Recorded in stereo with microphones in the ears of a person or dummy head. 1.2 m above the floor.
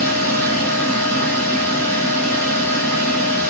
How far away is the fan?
About 1.4 m.